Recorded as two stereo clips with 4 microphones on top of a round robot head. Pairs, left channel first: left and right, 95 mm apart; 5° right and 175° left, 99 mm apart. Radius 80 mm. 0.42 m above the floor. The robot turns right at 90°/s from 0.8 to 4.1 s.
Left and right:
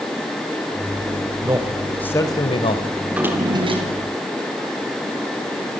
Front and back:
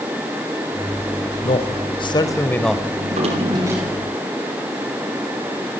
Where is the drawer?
Straight behind, 5.5 m; by 5.8 s 80° right, 5.5 m.